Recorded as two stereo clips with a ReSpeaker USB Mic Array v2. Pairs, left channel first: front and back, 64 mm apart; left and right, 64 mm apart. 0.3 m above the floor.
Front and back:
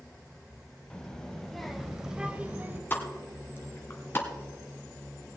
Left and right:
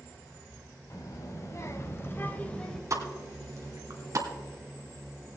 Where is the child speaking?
75° left, 1.5 m; by 2.8 s 160° left, 0.9 m.